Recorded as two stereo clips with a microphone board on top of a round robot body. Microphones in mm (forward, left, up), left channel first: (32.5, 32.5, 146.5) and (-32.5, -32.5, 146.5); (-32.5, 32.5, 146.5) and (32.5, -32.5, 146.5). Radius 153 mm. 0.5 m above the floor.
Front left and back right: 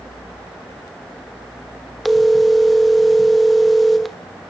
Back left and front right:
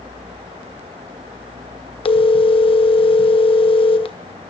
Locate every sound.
2.0 s a phone ringing: 135° left, 1.5 m